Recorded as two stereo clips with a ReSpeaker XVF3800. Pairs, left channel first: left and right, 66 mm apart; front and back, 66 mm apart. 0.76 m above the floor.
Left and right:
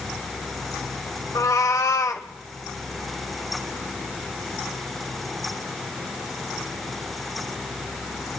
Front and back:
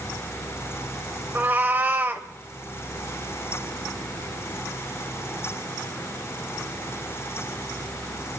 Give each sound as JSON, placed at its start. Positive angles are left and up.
{"t": 1.4, "sound": "a cat meowing", "azimuth_deg": 120, "distance_m": 1.3}